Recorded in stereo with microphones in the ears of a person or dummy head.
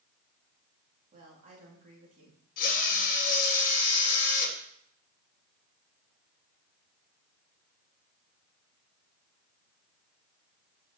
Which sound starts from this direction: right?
A woman speaking, at 1.1 s.